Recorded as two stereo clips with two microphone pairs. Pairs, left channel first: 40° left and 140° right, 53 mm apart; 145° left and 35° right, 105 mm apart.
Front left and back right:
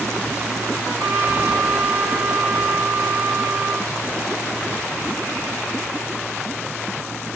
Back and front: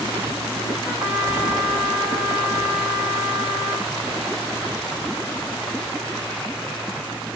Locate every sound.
0.8 s a trumpet: 115° right, 6 m